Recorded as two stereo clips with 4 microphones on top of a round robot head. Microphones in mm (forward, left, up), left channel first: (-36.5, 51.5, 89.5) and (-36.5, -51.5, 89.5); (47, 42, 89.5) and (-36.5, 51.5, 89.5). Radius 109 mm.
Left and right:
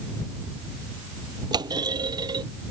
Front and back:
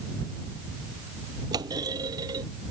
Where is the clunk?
135° right.